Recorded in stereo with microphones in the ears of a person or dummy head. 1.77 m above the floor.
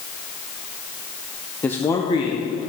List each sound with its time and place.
1.6 s a man speaking: 5° left (ahead or behind), 0.7 m; by 2.7 s 30° left (ahead or behind), 1.4 m